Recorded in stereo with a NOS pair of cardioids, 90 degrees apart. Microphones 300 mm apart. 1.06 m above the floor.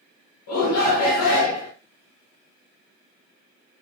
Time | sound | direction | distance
0.5 | a shout | 65° left | 1.6 m